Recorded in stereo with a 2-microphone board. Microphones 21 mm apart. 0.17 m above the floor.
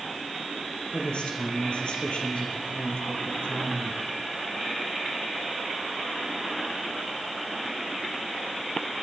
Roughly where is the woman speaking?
Left.